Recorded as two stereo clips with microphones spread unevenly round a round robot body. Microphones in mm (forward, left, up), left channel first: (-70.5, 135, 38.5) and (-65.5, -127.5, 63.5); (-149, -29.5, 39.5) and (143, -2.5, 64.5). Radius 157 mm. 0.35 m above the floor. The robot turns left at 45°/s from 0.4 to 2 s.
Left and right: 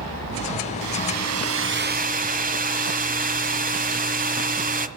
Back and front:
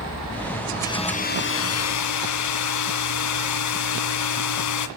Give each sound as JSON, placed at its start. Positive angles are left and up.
{"t": 0.8, "sound": "a hair dryer", "azimuth_deg": -95, "distance_m": 1.8}